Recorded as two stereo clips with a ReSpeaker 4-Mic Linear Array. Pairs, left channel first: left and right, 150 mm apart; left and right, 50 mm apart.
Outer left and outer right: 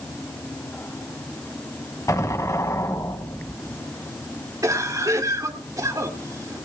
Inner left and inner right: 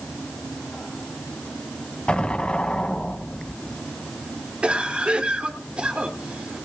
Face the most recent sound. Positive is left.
turn(degrees=-20)  # may be behind; listen again after turning